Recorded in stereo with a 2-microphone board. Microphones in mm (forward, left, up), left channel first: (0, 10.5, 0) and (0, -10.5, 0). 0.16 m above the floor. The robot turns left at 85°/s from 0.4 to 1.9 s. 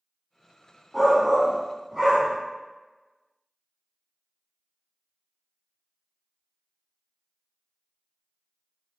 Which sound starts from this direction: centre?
A shout, at 0.9 s.